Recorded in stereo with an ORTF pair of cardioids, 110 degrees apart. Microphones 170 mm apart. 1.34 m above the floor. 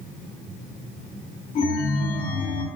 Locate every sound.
1.6 s a chime: 50° left, 2.5 m